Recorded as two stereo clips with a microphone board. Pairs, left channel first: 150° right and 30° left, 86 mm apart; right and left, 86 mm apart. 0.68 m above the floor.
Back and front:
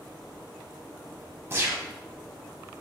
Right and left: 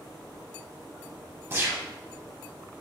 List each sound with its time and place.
1.5 s a gunshot: 60° left, 0.6 m